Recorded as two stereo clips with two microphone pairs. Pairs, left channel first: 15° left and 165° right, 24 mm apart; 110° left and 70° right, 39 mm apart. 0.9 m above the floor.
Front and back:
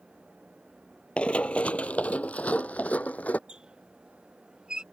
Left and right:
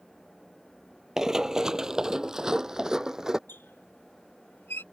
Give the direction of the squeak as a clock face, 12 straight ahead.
7 o'clock.